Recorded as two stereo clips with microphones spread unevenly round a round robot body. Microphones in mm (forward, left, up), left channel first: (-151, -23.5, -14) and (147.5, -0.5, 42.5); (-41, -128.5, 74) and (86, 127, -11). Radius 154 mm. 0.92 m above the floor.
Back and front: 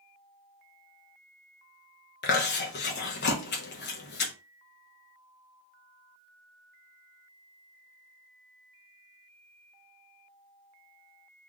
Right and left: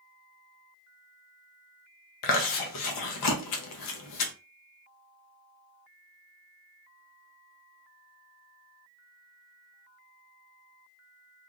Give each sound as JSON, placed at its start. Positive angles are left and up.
{"t": 2.2, "sound": "chewing", "azimuth_deg": -135, "distance_m": 0.9}